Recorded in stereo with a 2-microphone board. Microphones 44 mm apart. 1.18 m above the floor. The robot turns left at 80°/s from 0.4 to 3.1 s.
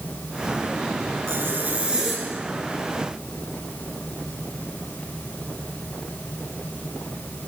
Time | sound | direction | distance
1.3 | a zipper | 105° right | 9 m